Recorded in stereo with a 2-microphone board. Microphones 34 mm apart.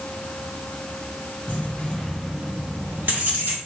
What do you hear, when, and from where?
1.5 s keys jangling: 45° left (ahead or behind), 1.2 m; by 3.6 s 75° right (ahead or behind), 1.8 m